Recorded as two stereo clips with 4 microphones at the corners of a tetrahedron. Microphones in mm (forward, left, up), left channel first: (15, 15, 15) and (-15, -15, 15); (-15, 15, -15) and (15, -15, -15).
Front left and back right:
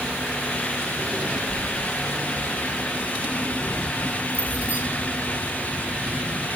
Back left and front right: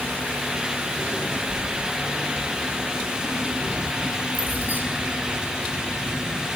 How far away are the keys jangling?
About 4.5 m.